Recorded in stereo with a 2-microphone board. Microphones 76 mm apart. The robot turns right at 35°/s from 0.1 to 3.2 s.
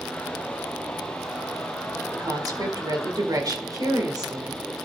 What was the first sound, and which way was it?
A woman speaking, 115° right.